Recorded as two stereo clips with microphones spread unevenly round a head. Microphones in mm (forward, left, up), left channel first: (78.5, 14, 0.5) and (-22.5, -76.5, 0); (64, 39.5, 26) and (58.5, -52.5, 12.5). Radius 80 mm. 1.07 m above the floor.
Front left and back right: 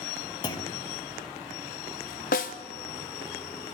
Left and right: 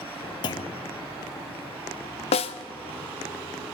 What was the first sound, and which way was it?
A clunk, 100° left.